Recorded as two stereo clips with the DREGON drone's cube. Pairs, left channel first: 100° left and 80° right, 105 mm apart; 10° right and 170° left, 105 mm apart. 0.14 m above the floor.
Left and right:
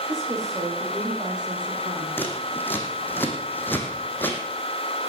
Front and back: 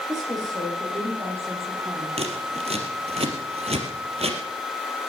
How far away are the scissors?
About 2.5 m.